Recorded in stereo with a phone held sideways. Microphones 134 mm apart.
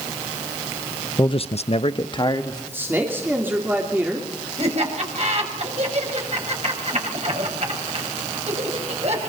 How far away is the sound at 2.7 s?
About 3 m.